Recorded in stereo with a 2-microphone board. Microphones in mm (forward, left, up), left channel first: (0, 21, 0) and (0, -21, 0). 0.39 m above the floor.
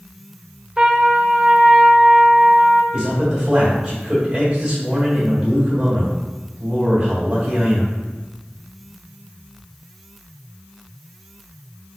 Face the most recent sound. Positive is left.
turn(degrees=-20)  # may be behind; listen again after turning